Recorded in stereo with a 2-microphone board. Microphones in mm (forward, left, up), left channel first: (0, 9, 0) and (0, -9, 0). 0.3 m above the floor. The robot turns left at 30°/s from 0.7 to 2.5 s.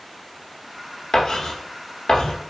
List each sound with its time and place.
1.1 s writing: 20° left (ahead or behind), 1.7 m; by 2.4 s 55° left (ahead or behind), 1.7 m